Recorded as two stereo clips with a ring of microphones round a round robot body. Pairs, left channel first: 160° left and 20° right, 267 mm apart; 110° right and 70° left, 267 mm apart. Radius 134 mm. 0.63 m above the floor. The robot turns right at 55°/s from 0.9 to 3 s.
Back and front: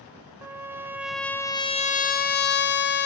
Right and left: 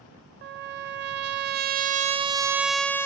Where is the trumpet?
55° left, 1.4 m; by 3.1 s 170° left, 1.4 m.